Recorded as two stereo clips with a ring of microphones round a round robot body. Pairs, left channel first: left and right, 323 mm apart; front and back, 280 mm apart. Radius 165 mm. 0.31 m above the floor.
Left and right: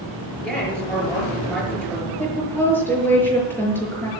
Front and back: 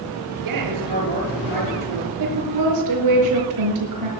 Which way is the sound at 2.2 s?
175° left.